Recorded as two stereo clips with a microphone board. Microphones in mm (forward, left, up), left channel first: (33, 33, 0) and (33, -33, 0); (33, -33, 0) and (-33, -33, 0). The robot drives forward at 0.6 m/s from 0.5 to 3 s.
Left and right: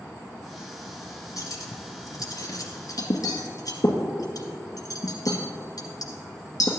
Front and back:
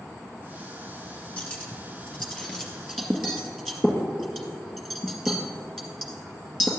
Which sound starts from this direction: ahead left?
Cutlery clinking, at 1.4 s.